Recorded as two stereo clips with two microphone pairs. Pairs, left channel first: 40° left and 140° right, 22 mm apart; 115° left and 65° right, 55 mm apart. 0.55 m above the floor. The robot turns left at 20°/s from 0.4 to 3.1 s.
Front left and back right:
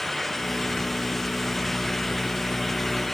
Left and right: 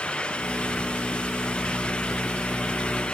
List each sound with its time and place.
Only background noise.